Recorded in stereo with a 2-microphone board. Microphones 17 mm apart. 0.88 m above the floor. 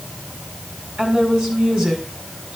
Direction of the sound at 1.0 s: 75° right (ahead or behind).